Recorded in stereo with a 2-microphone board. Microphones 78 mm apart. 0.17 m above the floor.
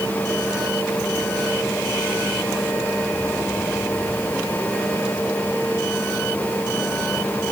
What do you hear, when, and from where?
Only background noise.